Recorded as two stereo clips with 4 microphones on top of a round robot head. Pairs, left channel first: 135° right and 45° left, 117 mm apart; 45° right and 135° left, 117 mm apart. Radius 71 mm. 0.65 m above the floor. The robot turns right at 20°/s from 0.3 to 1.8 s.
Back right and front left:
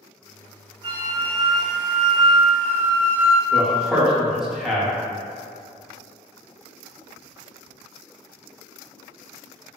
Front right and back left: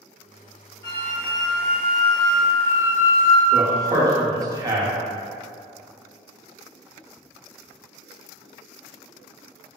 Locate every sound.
0.8 s a flute: 85° right, 1.3 m; by 3.4 s 65° right, 1.3 m
3.5 s a man speaking: 130° left, 0.7 m